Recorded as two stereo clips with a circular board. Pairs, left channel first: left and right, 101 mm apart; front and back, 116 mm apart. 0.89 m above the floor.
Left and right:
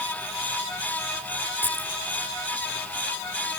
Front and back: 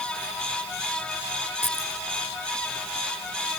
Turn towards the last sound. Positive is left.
turn(degrees=-20)